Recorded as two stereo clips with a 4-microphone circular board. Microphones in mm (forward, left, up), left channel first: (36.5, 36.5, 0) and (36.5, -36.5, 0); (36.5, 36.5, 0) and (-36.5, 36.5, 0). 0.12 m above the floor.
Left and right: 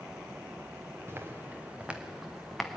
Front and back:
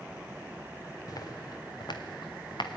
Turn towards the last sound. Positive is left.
turn(degrees=5)